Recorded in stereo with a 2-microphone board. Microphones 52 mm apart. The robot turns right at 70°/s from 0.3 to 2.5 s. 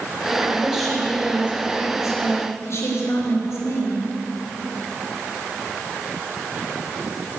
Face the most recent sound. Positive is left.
turn(degrees=115)